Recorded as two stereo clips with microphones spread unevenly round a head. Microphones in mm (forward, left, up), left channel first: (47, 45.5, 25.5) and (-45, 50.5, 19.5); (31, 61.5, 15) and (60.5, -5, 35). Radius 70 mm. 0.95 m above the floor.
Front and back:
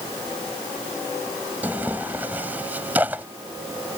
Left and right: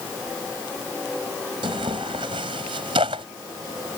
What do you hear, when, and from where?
1.6 s tearing paper: 105° right